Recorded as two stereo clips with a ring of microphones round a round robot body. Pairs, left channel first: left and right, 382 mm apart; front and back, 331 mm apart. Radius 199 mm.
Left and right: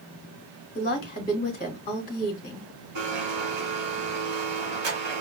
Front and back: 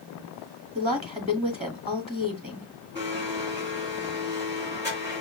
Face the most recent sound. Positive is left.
turn(degrees=-95)